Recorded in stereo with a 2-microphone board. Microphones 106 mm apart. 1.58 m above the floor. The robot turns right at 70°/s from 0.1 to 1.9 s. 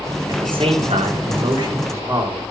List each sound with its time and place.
0.3 s a man speaking: 140° right, 4.5 m; by 2.4 s 25° right, 4.5 m